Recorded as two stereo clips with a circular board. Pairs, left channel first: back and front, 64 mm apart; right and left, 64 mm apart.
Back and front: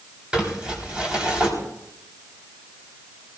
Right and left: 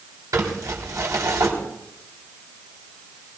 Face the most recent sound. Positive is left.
turn(degrees=75)